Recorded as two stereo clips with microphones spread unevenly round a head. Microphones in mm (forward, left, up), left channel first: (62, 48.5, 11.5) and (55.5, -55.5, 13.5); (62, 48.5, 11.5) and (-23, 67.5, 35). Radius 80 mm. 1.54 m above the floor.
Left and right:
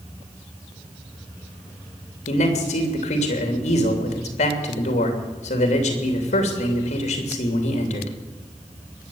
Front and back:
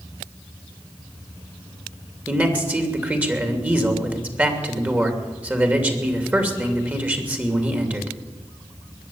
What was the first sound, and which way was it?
A man speaking, 95° left.